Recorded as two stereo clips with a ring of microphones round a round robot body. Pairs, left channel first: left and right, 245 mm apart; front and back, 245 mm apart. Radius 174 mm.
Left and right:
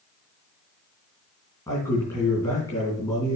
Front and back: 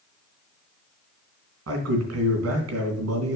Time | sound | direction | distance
1.7 | a man speaking | 170° left | 3 m